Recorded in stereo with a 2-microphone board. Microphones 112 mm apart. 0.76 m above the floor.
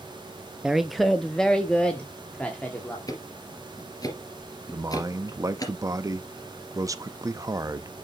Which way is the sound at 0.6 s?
5° right (ahead or behind).